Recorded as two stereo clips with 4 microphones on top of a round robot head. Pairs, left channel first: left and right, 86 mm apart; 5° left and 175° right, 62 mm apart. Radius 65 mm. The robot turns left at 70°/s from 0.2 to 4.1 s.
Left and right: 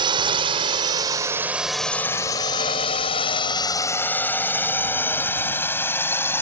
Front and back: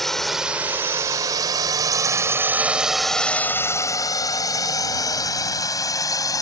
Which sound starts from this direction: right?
A drone, at 0.0 s.